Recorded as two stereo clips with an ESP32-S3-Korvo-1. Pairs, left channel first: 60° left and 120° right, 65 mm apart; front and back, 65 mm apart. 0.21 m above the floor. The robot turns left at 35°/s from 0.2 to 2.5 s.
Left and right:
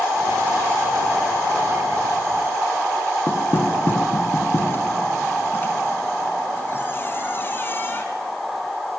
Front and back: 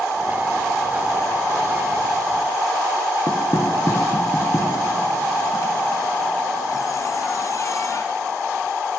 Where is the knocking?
15° left, 2.0 m.